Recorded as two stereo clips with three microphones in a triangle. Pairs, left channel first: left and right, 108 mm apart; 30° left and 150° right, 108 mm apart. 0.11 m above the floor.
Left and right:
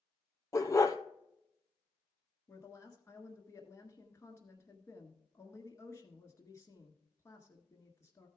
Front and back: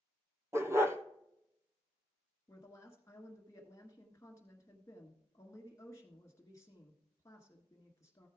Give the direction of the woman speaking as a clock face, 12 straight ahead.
10 o'clock.